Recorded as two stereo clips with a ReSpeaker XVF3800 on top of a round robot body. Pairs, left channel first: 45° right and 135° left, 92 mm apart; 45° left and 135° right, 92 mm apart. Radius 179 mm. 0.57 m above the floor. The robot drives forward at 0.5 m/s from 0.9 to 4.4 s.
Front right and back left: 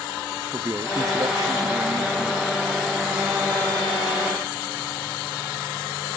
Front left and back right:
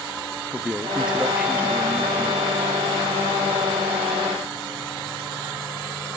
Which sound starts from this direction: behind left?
A man speaking, at 0.5 s.